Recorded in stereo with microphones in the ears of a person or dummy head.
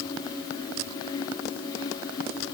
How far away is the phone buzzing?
I don't hear a phone buzzing.